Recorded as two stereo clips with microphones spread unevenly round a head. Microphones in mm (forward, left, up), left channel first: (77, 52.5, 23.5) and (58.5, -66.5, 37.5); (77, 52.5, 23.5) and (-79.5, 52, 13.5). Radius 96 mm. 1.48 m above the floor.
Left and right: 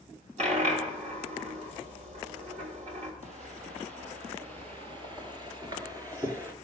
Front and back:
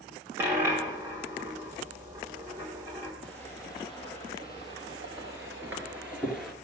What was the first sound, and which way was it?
A dropped coin, 100° right.